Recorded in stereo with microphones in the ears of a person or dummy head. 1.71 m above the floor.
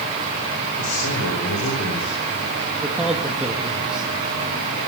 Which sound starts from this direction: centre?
A man speaking, at 2.8 s.